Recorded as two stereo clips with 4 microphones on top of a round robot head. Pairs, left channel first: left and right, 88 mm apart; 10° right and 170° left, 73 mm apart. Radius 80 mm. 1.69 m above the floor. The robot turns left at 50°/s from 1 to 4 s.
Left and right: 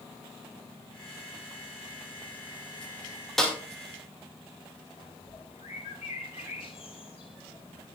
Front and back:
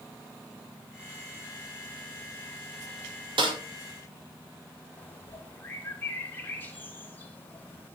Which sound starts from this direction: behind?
A snare drum, at 3.4 s.